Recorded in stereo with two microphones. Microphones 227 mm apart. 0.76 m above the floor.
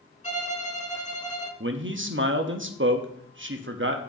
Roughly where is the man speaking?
Right.